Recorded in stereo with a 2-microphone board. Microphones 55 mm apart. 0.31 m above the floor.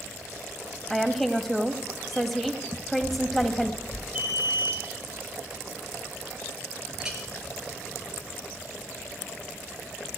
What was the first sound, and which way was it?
A woman speaking, 5° left (ahead or behind).